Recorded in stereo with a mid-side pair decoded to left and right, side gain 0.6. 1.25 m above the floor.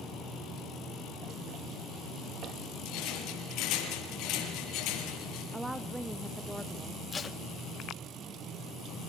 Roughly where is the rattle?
Ahead left.